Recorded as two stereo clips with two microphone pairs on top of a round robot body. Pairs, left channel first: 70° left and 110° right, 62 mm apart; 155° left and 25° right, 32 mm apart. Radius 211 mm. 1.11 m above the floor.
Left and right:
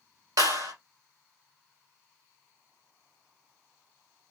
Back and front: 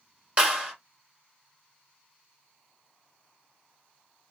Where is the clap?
85° right, 3.5 m.